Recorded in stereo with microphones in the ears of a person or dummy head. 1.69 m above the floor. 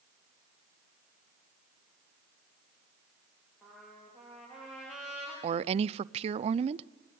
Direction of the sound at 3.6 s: 5° right (ahead or behind).